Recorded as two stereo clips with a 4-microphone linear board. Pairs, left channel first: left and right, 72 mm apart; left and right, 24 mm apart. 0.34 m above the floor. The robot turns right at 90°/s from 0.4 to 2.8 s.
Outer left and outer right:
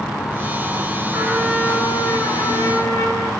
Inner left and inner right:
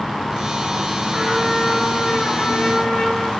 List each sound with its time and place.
1.1 s a trumpet: 30° right, 3.5 m; by 3.3 s 120° left, 3.5 m